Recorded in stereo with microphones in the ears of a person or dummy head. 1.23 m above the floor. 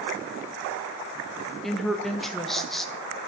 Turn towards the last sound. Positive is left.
turn(degrees=0)  # may be behind; listen again after turning